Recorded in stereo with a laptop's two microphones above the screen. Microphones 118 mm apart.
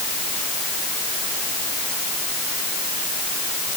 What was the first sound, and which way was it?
Only background noise.